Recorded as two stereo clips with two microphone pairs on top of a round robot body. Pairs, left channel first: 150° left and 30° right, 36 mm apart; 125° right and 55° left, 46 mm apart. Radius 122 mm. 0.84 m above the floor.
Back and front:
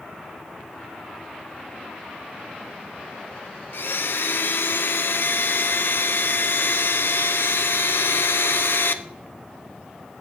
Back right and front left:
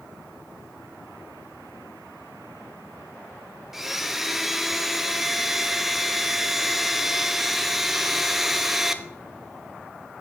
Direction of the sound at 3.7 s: 145° left.